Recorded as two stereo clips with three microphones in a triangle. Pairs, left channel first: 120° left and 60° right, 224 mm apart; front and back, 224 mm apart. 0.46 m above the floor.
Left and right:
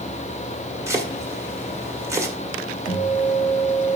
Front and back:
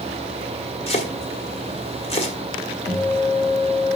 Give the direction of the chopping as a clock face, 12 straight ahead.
12 o'clock.